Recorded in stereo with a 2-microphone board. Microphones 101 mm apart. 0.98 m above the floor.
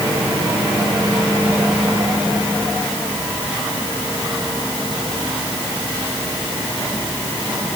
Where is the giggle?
I don't hear a giggle.